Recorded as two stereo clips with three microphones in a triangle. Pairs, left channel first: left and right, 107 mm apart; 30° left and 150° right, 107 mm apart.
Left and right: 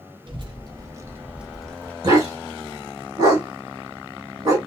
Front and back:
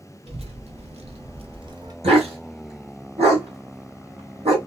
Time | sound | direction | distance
0.3 | a child speaking | 130° right | 0.9 m
2.0 | a dog barking | 140° right | 1.8 m